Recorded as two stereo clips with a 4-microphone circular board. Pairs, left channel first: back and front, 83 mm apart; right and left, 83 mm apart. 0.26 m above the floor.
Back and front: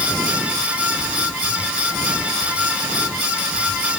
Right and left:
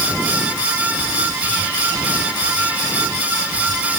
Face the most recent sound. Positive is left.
No sound to turn to.